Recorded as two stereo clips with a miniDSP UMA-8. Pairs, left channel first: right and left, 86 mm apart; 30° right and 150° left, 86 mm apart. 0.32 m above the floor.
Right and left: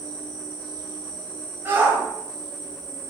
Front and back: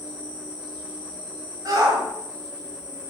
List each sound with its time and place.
0.0 s an insect: 85° left, 1.7 m
1.6 s a shout: 145° left, 1.2 m